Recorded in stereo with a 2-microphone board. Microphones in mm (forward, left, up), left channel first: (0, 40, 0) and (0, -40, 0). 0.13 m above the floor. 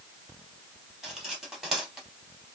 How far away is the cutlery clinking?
About 2 m.